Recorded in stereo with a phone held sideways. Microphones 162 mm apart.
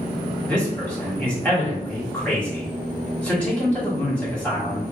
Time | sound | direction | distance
0.5 | a man speaking | 10° left (ahead or behind) | 1.7 m